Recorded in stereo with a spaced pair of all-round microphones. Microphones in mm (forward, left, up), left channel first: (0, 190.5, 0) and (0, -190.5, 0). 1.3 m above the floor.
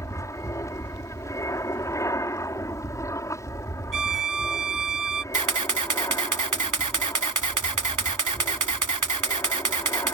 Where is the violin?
55° right (ahead or behind).